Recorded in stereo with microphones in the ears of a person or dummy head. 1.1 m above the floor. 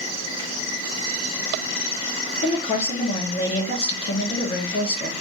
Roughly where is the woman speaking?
Left.